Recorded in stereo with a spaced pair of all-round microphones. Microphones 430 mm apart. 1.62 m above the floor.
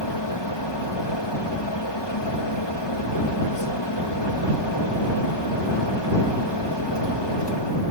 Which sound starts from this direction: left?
A fan, at 0.0 s.